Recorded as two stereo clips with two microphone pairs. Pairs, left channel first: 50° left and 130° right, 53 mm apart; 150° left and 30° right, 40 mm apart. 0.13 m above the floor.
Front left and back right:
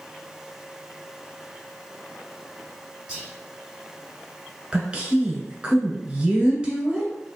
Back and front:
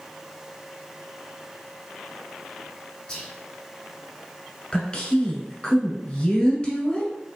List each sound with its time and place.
3.1 s whispering: straight behind, 1.3 m
4.7 s a woman speaking: 175° left, 1.2 m